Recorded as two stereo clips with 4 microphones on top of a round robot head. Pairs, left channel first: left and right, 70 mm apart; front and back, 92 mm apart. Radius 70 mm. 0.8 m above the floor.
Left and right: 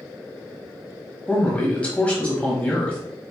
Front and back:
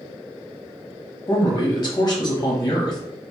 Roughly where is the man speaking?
Ahead left.